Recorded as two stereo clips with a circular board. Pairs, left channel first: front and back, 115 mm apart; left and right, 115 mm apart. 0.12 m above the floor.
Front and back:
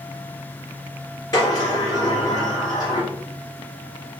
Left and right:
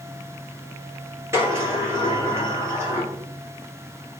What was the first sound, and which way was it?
A sliding door, 35° right.